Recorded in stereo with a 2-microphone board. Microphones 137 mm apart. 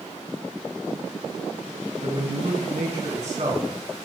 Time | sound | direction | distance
2.0 | a man speaking | 55° right (ahead or behind) | 3 m